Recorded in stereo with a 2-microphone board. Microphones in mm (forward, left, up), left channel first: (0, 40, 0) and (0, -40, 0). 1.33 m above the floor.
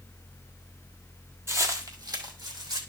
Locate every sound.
1.5 s footsteps: 30° right (ahead or behind), 1.6 m; by 2.8 s 65° right (ahead or behind), 3 m